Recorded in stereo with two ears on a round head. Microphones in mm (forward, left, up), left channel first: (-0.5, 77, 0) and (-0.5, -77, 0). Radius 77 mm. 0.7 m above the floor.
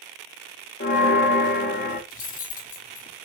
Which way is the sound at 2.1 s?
50° left (ahead or behind).